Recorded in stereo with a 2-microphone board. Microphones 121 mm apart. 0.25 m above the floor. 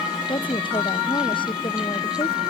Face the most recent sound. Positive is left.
turn(degrees=40)  # may be behind; listen again after turning